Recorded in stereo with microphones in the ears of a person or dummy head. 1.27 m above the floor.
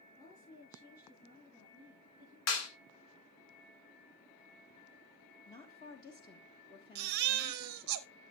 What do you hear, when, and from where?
0.1 s a woman speaking: 25° left (ahead or behind), 10 m
2.5 s a clap: 90° left, 2 m
5.5 s a woman speaking: 30° left (ahead or behind), 1.3 m
7.0 s a baby crying: 45° right (ahead or behind), 0.6 m